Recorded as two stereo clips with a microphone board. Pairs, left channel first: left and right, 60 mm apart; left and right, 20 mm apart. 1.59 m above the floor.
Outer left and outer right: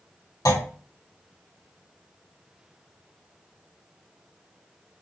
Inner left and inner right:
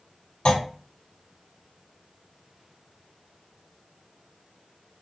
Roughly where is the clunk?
Left.